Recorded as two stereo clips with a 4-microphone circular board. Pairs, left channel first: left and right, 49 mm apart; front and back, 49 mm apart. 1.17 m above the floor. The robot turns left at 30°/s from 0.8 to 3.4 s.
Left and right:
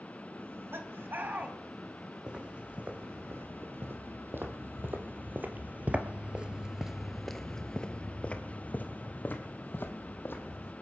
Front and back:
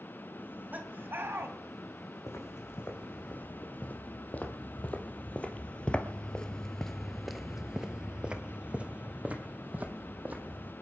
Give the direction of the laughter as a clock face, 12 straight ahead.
4 o'clock.